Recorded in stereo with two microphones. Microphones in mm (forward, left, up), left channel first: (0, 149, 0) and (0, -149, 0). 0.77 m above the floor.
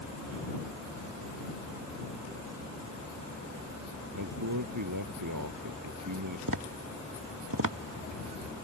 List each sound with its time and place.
4.2 s a man speaking: 80° right
6.5 s tapping: 75° right (ahead or behind)